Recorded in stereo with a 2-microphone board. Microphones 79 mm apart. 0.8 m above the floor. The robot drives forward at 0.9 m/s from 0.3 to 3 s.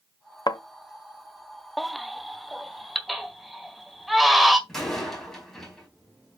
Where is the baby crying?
Centre (ahead or behind), 0.5 m.